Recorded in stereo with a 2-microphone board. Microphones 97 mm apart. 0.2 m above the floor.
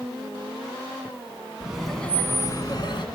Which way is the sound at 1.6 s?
10° right (ahead or behind).